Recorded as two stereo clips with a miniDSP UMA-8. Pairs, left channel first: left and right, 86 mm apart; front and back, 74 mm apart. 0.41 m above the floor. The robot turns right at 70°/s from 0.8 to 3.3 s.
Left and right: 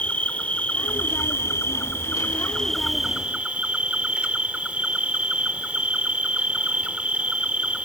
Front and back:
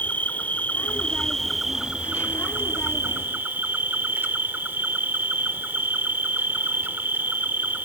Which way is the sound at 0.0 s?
35° left.